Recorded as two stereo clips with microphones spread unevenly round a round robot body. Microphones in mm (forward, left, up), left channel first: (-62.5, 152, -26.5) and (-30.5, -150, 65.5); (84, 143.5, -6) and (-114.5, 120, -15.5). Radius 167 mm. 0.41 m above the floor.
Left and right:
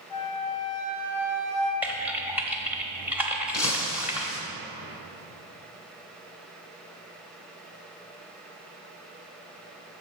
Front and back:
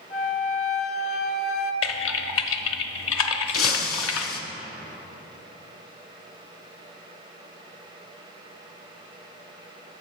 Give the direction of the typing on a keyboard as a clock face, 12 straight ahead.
12 o'clock.